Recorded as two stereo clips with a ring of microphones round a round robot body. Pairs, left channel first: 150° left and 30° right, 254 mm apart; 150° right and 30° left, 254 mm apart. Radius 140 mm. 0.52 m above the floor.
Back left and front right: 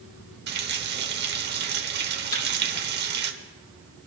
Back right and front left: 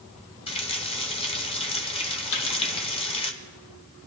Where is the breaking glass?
No breaking glass in this recording.